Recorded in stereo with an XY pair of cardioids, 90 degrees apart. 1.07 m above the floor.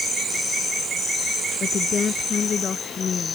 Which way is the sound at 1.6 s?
50° left.